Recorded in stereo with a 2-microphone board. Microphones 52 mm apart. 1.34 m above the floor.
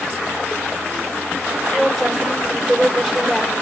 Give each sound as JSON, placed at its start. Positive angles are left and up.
{"t": 1.7, "sound": "a woman speaking", "side_deg": -5, "distance_m": 5.0}